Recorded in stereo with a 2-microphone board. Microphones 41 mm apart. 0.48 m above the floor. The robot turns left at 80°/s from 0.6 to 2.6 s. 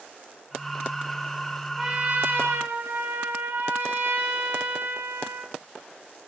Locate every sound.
1.8 s a trumpet: 5° right, 6.5 m; by 5.5 s 75° right, 6.5 m